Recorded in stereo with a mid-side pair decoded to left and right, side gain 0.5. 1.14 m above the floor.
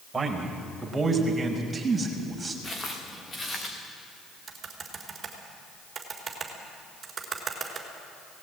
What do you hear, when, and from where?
0.1 s a man speaking: 20° right, 5 m; by 2.5 s 15° right, 6 m
2.6 s footsteps: 25° left, 5.5 m
4.5 s typing on a keyboard: 35° right, 4.5 m